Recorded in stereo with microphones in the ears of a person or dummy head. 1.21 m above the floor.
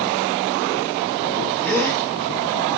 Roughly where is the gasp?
Centre.